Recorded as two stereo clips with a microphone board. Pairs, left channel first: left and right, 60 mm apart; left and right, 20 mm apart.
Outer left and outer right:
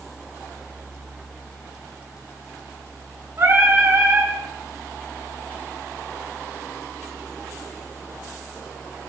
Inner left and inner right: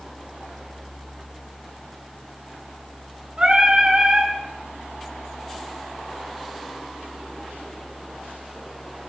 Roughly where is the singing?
Right.